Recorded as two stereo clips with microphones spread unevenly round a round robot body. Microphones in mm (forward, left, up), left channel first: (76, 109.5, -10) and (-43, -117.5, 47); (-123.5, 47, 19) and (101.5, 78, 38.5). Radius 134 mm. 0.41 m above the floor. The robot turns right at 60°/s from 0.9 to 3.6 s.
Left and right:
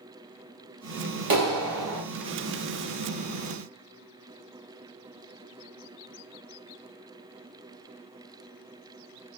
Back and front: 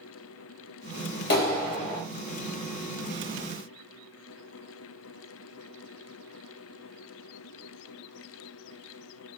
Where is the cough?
No cough in this recording.